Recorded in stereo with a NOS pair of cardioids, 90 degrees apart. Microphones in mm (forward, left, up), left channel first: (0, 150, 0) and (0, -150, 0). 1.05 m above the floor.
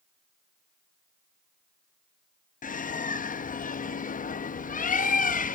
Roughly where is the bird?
Ahead left.